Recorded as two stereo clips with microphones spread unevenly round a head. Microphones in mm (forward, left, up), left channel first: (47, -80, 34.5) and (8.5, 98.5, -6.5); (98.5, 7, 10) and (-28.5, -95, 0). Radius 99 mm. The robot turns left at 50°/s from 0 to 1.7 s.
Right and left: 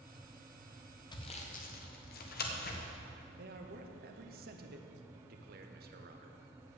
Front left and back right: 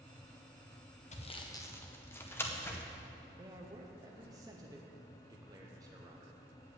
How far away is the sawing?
About 1.7 m.